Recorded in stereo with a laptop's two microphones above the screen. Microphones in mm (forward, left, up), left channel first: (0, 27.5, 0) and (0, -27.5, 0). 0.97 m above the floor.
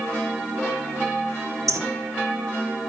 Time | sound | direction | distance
1.7 | a bird | 75° right (ahead or behind) | 0.9 m